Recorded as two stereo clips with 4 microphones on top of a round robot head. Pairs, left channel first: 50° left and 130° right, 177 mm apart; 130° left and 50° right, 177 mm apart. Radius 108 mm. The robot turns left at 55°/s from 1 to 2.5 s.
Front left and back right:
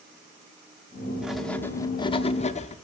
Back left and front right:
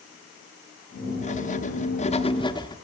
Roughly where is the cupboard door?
No cupboard door in this recording.